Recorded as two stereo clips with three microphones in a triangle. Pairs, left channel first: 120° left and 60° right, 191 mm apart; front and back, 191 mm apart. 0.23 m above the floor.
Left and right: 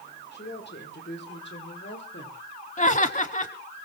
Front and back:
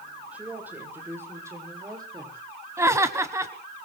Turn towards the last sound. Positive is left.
turn(degrees=115)